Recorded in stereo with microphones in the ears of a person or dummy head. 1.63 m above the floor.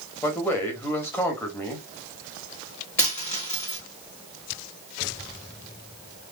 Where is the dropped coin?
10° left (ahead or behind), 1.4 m.